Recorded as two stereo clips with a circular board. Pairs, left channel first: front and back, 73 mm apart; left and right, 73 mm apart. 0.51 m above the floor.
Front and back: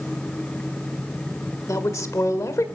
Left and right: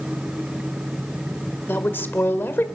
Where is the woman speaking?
35° left, 1.6 m.